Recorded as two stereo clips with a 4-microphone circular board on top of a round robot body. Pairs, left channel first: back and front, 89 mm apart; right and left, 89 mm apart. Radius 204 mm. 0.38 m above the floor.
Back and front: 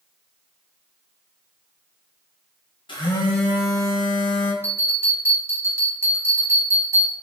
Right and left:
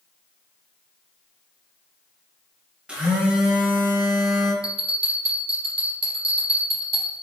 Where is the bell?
65° left, 0.6 m.